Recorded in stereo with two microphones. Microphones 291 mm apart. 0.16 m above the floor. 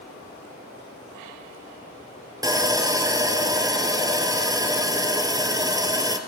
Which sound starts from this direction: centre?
Sawing, at 2.4 s.